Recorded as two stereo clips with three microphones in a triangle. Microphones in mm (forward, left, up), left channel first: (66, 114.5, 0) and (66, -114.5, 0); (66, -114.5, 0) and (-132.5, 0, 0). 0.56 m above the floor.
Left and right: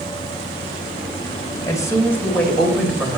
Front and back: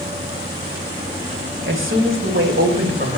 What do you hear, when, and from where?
1.7 s a woman speaking: 160° left, 2.5 m; by 3.2 s 170° right, 2.5 m